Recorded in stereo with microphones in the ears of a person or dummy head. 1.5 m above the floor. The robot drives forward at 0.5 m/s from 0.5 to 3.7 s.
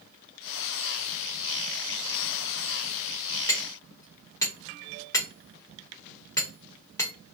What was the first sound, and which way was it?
Hammering, 15° left (ahead or behind).